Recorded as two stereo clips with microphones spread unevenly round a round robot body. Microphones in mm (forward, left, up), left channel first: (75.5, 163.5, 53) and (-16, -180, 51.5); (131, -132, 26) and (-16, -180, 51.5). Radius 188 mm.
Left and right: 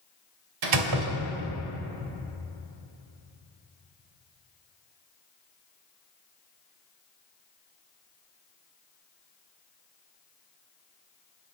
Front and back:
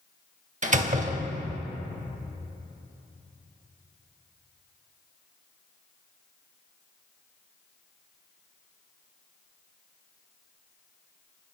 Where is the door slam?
120° right, 1.6 m.